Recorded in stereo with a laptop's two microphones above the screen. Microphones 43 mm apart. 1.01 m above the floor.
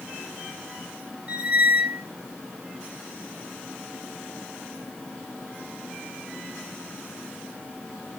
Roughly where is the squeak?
Right.